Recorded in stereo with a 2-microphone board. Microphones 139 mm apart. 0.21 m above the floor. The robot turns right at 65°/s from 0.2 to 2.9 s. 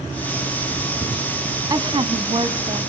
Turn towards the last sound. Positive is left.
turn(degrees=-60)